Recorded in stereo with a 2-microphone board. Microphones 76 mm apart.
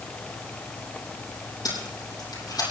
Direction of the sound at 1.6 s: 60° left (ahead or behind).